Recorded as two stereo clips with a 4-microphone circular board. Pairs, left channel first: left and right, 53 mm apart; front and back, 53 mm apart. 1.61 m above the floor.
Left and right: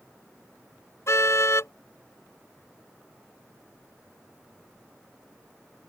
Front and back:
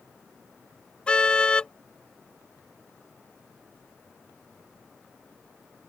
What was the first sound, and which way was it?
A car horn, 70° left.